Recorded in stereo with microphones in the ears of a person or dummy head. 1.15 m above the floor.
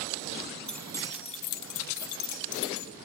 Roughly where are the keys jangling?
Centre.